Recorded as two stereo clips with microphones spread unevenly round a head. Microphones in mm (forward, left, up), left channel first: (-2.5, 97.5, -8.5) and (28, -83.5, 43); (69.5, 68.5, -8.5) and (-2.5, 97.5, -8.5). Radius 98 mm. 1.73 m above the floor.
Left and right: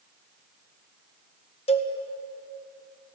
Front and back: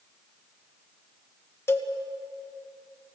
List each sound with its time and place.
1.7 s a cowbell: 35° left, 1.8 m